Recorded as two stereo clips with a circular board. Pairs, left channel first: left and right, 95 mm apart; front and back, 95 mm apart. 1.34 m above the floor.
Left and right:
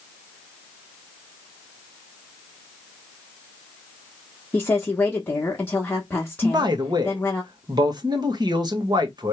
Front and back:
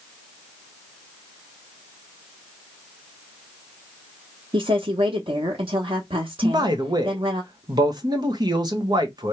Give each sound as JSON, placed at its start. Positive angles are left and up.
{"t": 4.5, "sound": "a woman speaking", "azimuth_deg": 165, "distance_m": 1.1}
{"t": 6.4, "sound": "a man speaking", "azimuth_deg": -135, "distance_m": 1.2}